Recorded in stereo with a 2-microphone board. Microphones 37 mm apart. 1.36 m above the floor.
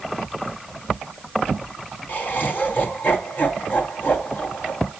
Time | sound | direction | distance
2.1 | laughter | 55° left (ahead or behind) | 1.0 m